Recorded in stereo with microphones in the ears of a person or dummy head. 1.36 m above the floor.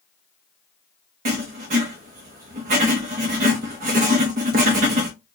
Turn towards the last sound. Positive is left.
turn(degrees=-40)  # may be behind; listen again after turning